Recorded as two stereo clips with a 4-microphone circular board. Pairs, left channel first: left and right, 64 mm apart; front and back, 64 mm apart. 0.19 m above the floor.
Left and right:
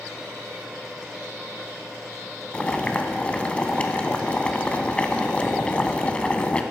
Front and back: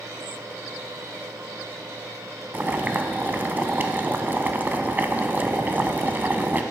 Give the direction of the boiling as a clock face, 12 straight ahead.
7 o'clock.